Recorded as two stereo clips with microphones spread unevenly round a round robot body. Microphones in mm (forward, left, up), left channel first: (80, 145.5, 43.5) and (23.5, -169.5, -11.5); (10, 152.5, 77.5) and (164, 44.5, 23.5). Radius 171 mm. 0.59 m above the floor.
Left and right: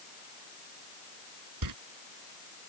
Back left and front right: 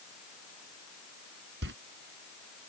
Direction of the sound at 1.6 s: 75° right.